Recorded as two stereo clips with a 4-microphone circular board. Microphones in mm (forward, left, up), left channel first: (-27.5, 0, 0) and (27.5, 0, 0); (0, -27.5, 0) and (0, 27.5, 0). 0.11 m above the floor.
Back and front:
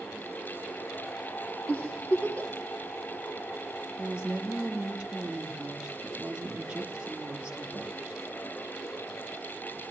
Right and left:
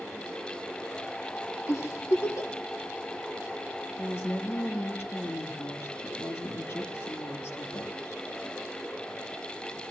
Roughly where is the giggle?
Behind right.